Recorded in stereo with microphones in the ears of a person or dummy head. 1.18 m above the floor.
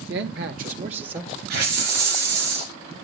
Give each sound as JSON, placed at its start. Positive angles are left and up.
{"t": 0.1, "sound": "a man speaking", "side_deg": -60, "distance_m": 1.1}
{"t": 1.5, "sound": "a hiss", "side_deg": -55, "distance_m": 2.5}